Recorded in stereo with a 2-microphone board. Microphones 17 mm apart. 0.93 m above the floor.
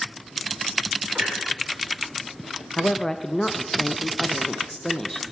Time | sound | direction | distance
1.1 | a clunk | 80° right | 3 m
2.8 | a woman speaking | 30° left (ahead or behind) | 0.6 m